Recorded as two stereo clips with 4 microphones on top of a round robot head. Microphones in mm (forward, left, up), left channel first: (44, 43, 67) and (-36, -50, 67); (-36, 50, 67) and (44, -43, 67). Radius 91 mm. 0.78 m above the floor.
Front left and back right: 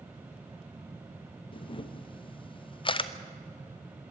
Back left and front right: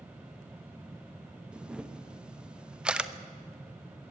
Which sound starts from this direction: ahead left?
A camera shutter, at 1.5 s.